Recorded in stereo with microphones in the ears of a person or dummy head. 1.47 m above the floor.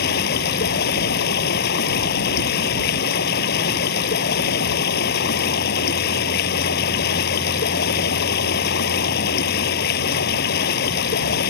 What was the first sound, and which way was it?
Running water, 60° left (ahead or behind).